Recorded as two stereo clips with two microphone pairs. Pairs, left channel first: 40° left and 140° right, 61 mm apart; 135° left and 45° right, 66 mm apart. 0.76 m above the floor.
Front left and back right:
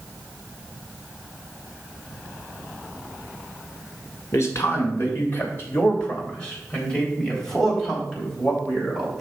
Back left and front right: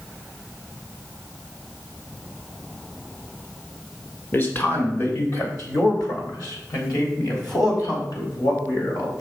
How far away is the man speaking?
About 2.5 m.